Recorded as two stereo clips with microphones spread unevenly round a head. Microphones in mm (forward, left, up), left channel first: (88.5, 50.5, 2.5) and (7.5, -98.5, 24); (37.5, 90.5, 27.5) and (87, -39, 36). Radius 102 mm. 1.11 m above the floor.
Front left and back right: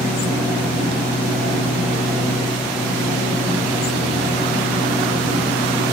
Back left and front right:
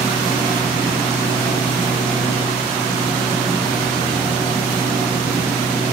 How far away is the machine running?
About 6 m.